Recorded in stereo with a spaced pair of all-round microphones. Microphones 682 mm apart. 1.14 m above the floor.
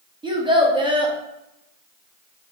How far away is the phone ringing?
I don't hear a phone ringing.